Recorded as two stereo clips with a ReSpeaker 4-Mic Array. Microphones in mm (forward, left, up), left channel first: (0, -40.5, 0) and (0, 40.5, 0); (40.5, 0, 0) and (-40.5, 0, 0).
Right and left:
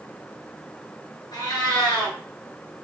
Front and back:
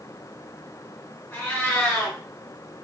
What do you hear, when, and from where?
1.3 s a cat meowing: 65° right, 2 m